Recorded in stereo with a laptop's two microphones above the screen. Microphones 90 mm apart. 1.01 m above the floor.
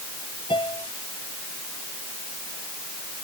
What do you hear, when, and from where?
0.5 s a piano: 60° left (ahead or behind)